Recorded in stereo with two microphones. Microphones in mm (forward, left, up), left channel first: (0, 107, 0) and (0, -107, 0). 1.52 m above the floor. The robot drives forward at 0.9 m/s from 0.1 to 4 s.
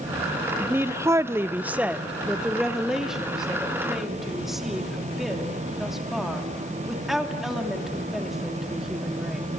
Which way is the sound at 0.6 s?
10° right (ahead or behind).